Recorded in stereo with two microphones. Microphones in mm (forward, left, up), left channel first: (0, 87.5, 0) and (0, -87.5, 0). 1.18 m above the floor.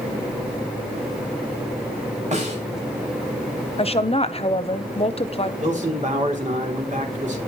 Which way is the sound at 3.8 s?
35° left (ahead or behind).